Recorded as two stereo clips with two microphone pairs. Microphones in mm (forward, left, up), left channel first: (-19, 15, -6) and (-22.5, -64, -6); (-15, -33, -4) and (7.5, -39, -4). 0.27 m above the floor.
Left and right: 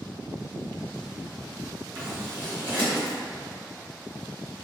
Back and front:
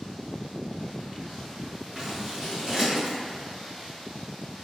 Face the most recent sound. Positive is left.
turn(degrees=-50)